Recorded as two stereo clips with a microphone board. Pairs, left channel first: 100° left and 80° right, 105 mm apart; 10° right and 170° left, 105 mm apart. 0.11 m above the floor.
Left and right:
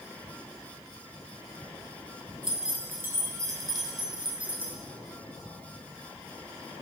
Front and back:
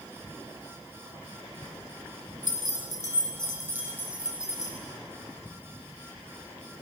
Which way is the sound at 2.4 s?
165° right.